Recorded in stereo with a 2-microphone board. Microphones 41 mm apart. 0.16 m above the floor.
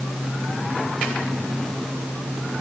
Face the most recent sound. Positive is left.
No sound to turn to.